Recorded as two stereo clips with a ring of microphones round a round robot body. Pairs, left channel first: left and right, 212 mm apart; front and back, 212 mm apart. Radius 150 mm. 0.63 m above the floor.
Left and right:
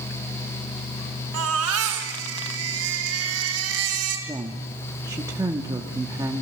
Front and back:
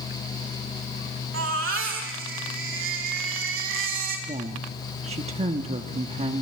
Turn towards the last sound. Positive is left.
turn(degrees=-150)